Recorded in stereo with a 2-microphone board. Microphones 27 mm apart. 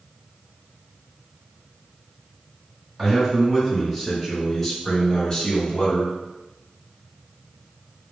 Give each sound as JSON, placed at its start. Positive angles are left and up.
{"t": 3.0, "sound": "a man speaking", "side_deg": -10, "distance_m": 1.9}